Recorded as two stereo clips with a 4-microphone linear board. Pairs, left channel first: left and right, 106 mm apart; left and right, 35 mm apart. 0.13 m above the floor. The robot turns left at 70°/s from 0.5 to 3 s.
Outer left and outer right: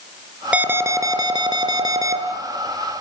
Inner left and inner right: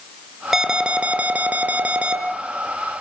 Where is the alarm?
20° right, 2.5 m; by 2.2 s 135° right, 2.5 m.